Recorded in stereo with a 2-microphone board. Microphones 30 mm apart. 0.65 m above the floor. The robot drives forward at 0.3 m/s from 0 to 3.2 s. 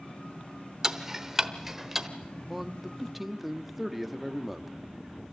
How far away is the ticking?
About 0.8 m.